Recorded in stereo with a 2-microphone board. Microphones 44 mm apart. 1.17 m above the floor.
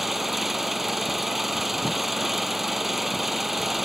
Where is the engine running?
5° right (ahead or behind).